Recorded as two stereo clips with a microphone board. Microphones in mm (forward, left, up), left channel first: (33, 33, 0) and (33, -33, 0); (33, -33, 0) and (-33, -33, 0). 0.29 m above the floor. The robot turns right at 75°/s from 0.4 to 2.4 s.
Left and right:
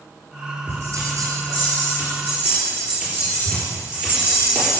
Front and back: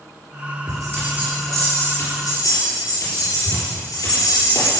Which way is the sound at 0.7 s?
150° right.